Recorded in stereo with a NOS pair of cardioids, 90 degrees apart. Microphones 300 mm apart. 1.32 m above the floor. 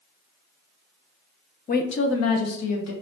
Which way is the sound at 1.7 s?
30° left.